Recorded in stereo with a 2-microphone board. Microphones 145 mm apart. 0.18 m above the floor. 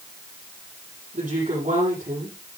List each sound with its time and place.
1.1 s a woman speaking: 60° right (ahead or behind), 7.5 m